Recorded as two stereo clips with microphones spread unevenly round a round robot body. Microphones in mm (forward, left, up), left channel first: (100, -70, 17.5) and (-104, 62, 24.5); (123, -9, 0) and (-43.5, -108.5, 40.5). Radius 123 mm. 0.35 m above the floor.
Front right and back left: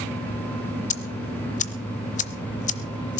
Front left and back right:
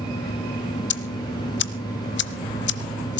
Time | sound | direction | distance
0.9 | ticking | 25° left | 0.8 m